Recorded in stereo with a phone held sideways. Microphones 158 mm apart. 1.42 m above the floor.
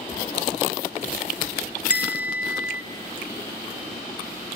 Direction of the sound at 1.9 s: 10° right (ahead or behind).